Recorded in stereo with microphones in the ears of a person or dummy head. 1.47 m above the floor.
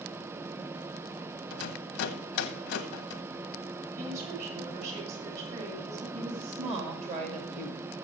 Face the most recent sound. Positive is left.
turn(degrees=-40)  # may be behind; listen again after turning